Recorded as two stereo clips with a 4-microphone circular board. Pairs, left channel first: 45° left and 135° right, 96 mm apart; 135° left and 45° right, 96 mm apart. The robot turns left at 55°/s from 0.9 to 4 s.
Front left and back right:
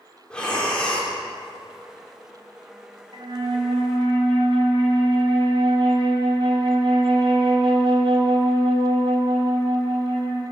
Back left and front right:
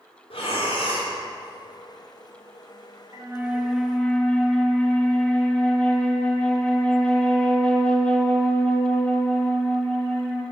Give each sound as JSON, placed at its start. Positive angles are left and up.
{"t": 0.3, "sound": "breathing", "azimuth_deg": 125, "distance_m": 2.5}
{"t": 3.1, "sound": "a flute", "azimuth_deg": -100, "distance_m": 1.6}